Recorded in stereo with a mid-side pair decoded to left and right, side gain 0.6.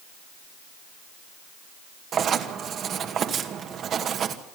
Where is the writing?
45° right, 2 m.